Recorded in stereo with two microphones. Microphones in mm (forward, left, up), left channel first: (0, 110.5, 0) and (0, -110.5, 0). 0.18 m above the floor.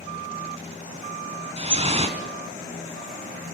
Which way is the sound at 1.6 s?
25° right (ahead or behind).